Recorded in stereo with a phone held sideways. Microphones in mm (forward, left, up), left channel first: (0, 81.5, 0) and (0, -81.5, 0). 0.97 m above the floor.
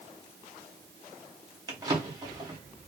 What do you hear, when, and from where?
1.7 s a drawer: 25° right (ahead or behind), 1.1 m